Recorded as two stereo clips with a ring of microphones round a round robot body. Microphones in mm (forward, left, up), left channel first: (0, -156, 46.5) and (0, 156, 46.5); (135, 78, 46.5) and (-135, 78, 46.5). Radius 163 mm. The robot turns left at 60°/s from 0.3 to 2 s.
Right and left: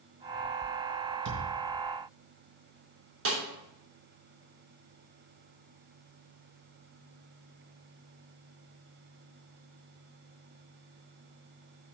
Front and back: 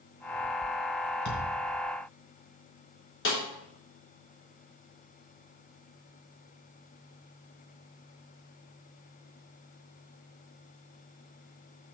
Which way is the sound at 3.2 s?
45° left.